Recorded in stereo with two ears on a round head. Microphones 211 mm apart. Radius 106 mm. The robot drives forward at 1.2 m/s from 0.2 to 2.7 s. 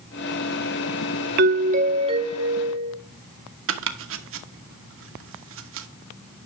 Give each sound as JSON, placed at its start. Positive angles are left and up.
{"t": 1.4, "sound": "a doorbell", "side_deg": -45, "distance_m": 0.6}
{"t": 3.7, "sound": "chopping", "side_deg": -60, "distance_m": 1.1}